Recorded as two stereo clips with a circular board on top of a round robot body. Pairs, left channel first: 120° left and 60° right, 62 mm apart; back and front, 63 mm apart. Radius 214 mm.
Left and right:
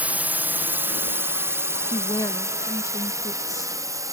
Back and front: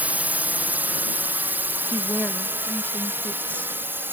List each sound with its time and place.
0.0 s a drone: 30° right; by 4.1 s 50° right
1.9 s a woman speaking: 115° left